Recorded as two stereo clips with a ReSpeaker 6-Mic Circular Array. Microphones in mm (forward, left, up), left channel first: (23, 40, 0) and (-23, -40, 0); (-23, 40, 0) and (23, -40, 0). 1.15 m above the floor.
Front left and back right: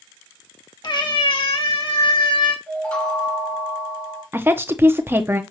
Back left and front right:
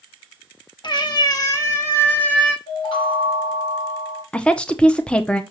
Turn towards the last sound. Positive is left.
turn(degrees=-170)